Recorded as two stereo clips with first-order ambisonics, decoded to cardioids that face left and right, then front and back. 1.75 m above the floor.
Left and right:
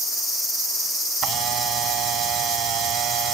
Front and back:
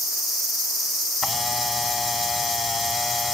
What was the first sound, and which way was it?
A camera shutter, 70° right.